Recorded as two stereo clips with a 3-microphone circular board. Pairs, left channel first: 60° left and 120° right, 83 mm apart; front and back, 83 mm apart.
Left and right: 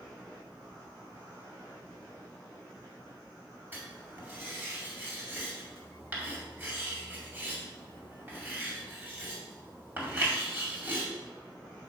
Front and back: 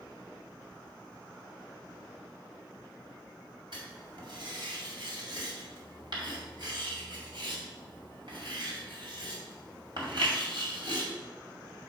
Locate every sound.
3.7 s writing: 175° left, 2 m